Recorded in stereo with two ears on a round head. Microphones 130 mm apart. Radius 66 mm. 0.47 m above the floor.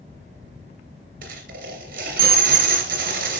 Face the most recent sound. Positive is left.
turn(degrees=-70)  # may be behind; listen again after turning